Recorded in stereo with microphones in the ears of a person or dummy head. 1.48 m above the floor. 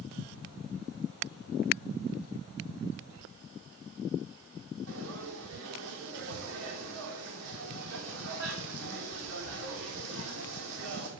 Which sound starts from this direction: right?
Frying, at 4.9 s.